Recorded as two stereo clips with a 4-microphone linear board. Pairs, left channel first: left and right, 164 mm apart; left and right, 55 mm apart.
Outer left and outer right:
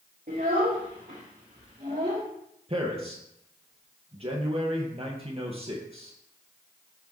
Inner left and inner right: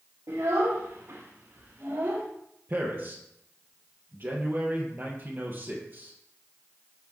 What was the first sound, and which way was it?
A child speaking, 70° right (ahead or behind).